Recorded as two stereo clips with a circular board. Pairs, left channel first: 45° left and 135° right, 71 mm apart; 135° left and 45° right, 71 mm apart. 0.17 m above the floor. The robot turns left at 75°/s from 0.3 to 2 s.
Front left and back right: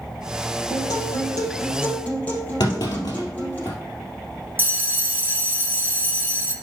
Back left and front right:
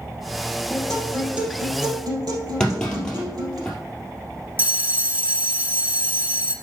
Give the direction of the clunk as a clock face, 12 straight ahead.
10 o'clock.